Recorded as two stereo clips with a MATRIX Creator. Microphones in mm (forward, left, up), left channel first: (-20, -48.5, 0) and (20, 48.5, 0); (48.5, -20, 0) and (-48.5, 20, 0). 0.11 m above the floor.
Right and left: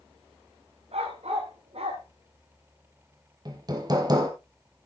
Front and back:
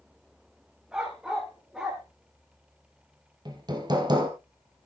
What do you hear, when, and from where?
0.9 s a dog barking: 75° left, 5.5 m
3.5 s hammering: 115° left, 2 m